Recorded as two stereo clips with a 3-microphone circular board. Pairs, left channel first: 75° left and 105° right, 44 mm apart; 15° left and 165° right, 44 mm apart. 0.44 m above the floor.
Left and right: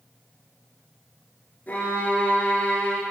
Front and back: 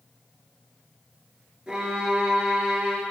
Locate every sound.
1.7 s a violin: 125° left, 1.8 m